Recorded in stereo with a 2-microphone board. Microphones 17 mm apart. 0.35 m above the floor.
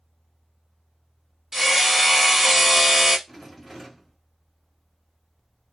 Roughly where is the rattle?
Centre.